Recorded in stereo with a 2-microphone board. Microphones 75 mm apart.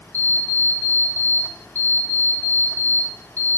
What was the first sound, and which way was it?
An alarm clock, 15° left (ahead or behind).